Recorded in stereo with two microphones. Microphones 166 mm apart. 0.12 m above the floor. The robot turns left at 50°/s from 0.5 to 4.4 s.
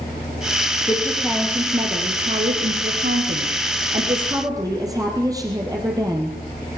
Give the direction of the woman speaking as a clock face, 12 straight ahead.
11 o'clock.